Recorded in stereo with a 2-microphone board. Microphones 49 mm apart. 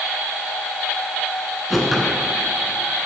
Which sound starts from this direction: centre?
A whoosh, at 1.7 s.